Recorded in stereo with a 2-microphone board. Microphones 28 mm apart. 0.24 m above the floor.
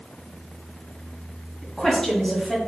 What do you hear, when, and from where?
1.6 s a woman speaking: 15° left (ahead or behind), 1.4 m